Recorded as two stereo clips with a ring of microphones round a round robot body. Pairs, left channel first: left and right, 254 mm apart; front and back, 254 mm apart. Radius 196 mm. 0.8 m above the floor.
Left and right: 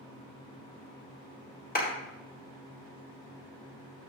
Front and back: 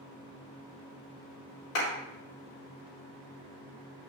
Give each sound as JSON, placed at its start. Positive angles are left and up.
{"t": 1.8, "sound": "a clap", "azimuth_deg": 35, "distance_m": 4.0}